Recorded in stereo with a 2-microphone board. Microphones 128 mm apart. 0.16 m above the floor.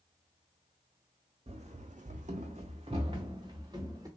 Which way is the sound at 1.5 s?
55° right (ahead or behind).